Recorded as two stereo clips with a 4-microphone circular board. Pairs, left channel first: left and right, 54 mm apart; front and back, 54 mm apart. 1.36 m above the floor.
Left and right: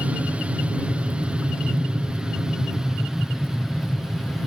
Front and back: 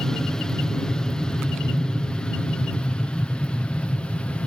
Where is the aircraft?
60° right; by 4.5 s 10° right.